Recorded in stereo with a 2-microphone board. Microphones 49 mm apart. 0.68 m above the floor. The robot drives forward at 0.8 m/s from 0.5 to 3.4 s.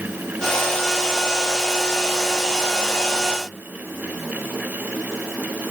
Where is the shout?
No shout in this recording.